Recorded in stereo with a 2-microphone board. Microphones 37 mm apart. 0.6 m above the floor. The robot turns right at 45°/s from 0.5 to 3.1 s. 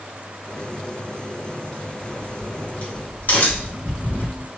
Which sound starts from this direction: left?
A crack, at 2.1 s.